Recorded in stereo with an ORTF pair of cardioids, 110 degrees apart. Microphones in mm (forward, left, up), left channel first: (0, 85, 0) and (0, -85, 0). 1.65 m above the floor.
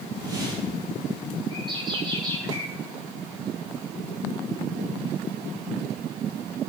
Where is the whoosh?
25° right, 8.5 m.